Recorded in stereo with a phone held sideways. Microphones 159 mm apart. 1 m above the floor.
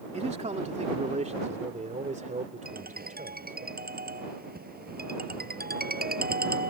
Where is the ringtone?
75° right (ahead or behind).